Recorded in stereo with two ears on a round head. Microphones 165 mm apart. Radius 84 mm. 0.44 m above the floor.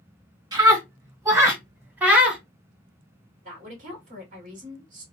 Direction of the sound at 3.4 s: 45° right (ahead or behind).